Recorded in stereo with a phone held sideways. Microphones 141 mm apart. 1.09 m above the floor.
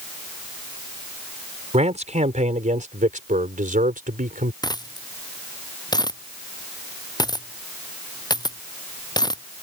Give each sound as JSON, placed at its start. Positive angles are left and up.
{"t": 1.7, "sound": "a man speaking", "side_deg": -55}
{"t": 4.6, "sound": "a dropped coin", "side_deg": 30}